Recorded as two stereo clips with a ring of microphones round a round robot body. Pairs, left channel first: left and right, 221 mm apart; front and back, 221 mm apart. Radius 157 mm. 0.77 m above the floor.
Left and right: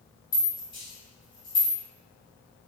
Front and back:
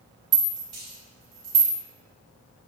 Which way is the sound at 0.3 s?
165° left.